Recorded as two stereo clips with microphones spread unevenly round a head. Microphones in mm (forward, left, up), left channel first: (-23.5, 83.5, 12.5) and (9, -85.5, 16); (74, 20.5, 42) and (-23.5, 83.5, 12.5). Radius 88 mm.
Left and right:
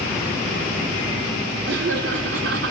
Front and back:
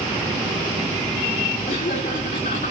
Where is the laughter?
55° right, 4.5 m; by 2.7 s 65° right, 4 m.